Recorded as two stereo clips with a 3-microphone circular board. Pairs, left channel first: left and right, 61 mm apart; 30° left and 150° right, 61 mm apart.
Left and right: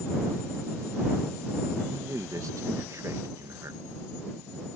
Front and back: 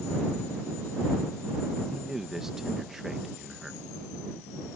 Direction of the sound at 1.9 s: 70° right.